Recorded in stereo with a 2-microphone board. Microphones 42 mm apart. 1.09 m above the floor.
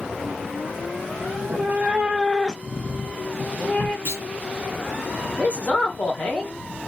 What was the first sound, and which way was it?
A cat meowing, 55° right (ahead or behind).